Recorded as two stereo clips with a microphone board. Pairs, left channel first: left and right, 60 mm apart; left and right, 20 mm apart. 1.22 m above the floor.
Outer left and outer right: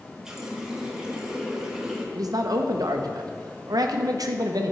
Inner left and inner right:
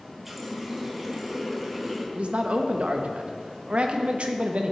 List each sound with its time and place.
0.2 s a running tap: 10° right (ahead or behind), 1.0 m
2.1 s a man speaking: 85° right, 0.7 m